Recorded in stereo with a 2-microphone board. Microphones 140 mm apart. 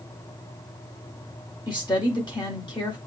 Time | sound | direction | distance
1.7 | a woman speaking | 30° left (ahead or behind) | 1.1 m